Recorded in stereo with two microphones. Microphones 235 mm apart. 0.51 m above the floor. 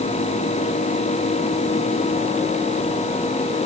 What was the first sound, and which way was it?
Only background noise.